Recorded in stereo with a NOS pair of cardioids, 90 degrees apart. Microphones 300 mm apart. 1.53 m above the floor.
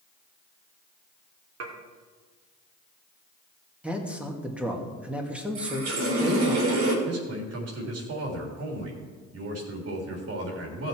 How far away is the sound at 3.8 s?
About 2.5 m.